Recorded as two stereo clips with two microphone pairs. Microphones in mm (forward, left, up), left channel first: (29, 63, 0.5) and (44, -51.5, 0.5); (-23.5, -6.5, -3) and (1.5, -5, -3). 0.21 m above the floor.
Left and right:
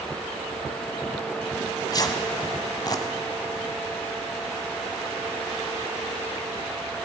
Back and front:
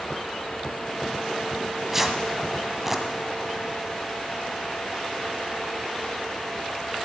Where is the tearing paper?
75° left, 1.2 m.